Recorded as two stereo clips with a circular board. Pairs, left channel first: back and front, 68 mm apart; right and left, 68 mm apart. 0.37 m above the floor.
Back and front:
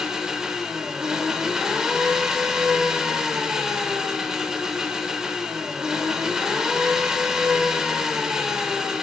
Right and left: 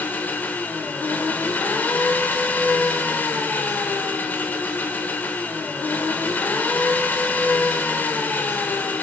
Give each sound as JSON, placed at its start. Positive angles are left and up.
{"t": 0.0, "sound": "an engine running", "azimuth_deg": -70, "distance_m": 0.8}